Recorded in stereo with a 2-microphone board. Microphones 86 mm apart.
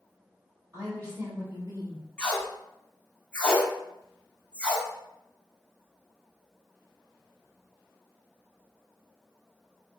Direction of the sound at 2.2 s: 15° left (ahead or behind).